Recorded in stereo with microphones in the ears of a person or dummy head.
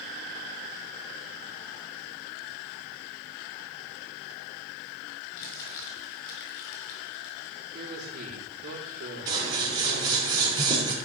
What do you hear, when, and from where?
5.4 s crumpling: 55° left (ahead or behind), 4.5 m
7.7 s a man speaking: 50° right (ahead or behind), 4 m
9.3 s scissors: 25° right (ahead or behind), 3.5 m